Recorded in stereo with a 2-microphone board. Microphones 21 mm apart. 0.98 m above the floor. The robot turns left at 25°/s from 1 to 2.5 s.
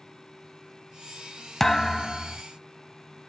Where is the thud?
10° left (ahead or behind), 0.8 m; by 2.4 s 5° left (ahead or behind), 0.8 m.